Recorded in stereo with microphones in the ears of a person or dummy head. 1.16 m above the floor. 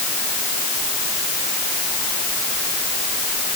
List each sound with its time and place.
Only background noise.